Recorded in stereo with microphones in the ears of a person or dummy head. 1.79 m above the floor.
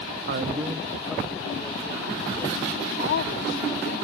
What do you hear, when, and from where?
0.3 s a man speaking: 60° right (ahead or behind); by 2.9 s 5° left (ahead or behind)
3.0 s a woman speaking: 70° left (ahead or behind)